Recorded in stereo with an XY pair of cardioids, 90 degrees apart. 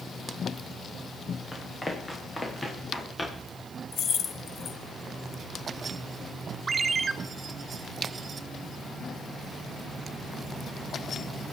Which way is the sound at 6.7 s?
40° right.